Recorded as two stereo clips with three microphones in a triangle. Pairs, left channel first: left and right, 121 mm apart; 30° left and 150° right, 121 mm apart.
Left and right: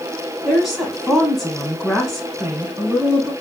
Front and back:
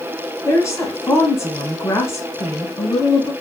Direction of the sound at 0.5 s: Straight ahead.